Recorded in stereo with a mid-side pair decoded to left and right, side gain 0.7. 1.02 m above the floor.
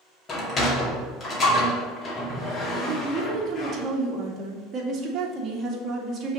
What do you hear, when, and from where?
0.3 s a sliding door: 30° left, 2 m
2.8 s a woman speaking: 35° right, 2.0 m